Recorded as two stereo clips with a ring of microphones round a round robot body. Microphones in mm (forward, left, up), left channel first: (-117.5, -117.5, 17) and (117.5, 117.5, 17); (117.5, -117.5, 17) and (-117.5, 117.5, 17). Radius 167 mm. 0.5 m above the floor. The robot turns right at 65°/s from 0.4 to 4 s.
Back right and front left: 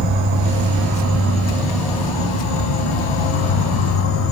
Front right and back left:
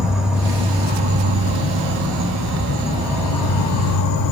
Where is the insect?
45° left, 0.8 m; by 4.3 s 80° right, 0.8 m.